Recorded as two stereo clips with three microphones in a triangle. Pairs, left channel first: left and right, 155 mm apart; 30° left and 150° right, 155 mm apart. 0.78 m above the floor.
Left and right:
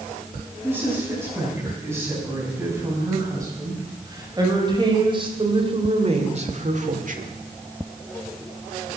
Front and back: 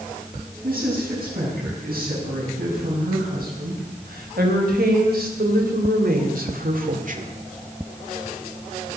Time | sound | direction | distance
0.6 | a woman speaking | 165° right | 6.5 m